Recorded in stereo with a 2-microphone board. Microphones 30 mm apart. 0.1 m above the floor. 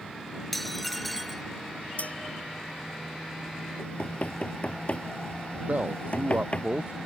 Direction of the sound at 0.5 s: 5° left (ahead or behind).